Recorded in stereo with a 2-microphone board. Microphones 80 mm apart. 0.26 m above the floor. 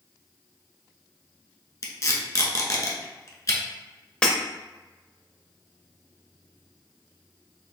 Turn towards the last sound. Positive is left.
turn(degrees=15)  # may be behind; listen again after turning